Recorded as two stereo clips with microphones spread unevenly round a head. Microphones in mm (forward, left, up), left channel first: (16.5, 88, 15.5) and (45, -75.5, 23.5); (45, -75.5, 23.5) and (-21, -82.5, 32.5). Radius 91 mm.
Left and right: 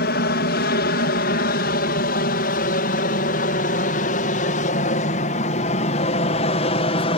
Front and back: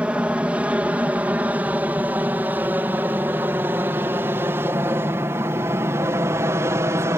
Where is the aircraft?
110° left; by 7.2 s 145° left.